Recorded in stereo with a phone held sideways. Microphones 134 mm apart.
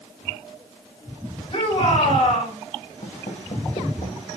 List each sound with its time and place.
1.5 s a shout: 40° left (ahead or behind), 6 m
3.0 s footsteps: 70° left (ahead or behind), 3 m; by 4.3 s 50° left (ahead or behind), 2 m